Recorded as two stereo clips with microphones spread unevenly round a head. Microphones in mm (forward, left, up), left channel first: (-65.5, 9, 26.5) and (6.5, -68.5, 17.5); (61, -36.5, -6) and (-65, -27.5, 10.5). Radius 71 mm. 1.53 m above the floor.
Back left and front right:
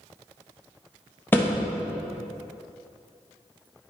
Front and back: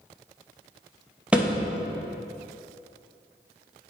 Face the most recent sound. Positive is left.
turn(degrees=135)